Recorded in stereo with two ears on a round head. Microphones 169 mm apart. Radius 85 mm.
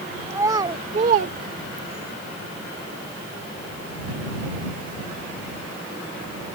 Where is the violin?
No violin in this recording.